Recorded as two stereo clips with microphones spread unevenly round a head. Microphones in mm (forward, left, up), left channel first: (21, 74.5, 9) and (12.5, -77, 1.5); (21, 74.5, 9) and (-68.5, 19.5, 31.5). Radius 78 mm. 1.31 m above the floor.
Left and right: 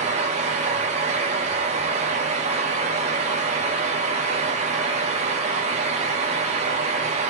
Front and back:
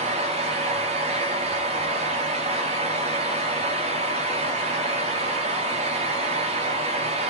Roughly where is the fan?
Behind right.